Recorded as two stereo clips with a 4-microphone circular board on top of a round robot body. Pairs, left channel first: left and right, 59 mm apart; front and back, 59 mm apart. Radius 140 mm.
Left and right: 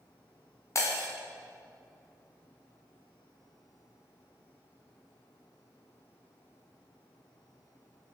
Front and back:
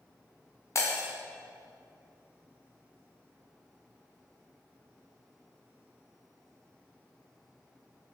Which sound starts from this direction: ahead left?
Breaking glass, at 0.8 s.